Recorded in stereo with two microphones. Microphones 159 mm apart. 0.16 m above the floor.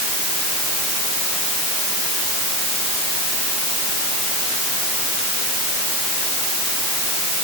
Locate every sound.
Only background noise.